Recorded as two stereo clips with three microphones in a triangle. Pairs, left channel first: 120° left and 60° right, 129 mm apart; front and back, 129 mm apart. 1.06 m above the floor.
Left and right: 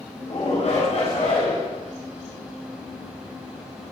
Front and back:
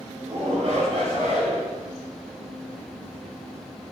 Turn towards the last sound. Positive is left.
turn(degrees=145)